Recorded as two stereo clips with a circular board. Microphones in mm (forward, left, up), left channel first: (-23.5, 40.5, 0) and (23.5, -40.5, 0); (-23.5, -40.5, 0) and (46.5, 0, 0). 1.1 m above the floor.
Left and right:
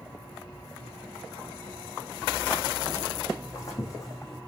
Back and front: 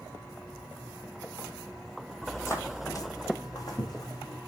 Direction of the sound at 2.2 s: 175° right.